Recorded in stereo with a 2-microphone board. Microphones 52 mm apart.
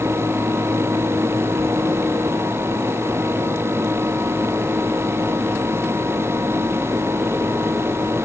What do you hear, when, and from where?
Only background noise.